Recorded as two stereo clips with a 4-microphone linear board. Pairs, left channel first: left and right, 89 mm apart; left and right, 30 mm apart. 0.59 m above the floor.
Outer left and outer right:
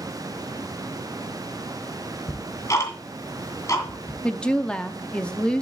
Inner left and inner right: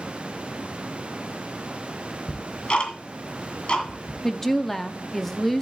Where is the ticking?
35° left (ahead or behind), 2 m.